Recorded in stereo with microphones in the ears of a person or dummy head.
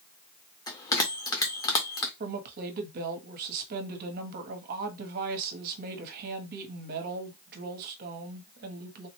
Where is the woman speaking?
50° right (ahead or behind), 0.9 m.